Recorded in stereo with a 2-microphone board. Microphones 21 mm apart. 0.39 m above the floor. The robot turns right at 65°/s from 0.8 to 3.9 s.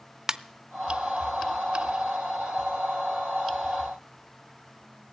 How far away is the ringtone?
About 0.5 m.